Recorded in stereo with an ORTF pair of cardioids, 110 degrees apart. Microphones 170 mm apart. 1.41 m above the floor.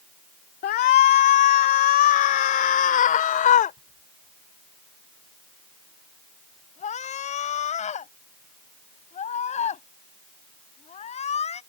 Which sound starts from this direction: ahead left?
A shout, at 0.6 s.